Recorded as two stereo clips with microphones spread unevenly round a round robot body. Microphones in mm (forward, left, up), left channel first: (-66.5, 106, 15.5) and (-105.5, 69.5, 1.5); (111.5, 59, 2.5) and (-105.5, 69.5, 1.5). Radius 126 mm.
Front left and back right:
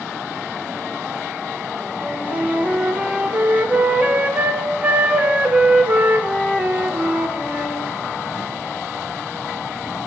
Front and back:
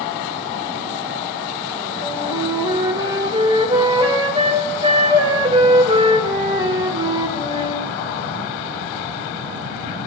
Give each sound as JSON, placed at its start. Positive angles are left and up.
{"t": 2.0, "sound": "a flute", "azimuth_deg": -120, "distance_m": 1.5}